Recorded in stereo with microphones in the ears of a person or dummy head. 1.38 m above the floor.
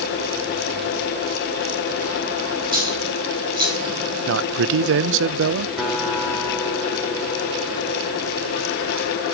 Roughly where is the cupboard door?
I don't hear a cupboard door.